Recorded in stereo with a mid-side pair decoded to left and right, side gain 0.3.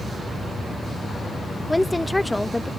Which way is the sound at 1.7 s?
15° left.